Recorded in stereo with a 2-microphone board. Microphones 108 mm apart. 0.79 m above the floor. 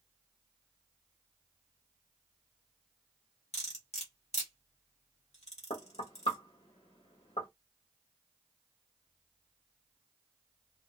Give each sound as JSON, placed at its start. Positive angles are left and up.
{"t": 3.5, "sound": "cutlery clinking", "side_deg": 80, "distance_m": 1.5}
{"t": 5.7, "sound": "knocking", "side_deg": 60, "distance_m": 1.8}